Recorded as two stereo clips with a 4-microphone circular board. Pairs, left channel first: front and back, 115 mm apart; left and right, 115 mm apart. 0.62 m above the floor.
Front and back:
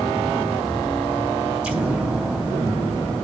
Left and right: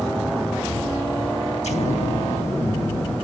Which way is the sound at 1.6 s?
100° left.